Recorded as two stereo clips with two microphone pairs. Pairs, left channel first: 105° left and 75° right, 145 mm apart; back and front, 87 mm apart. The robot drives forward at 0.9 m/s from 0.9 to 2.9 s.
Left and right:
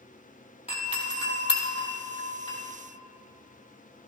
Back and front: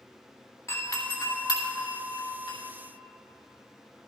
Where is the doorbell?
135° left, 2.0 m; by 2.6 s 155° left, 3 m.